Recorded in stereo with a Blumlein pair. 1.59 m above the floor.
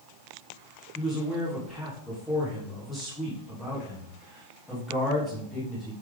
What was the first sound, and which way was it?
A man speaking, 5° left.